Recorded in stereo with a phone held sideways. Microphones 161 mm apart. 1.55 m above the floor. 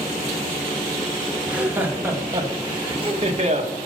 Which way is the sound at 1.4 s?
10° right (ahead or behind).